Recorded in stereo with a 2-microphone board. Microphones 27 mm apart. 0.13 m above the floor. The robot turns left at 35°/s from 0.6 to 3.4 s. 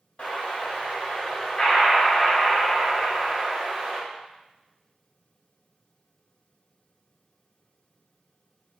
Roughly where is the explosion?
Ahead left.